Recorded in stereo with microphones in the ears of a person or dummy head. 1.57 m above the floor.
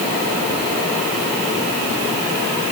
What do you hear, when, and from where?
Only background noise.